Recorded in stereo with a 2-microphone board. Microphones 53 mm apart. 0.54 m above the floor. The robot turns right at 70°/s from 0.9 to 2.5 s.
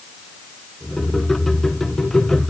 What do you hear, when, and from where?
Only background noise.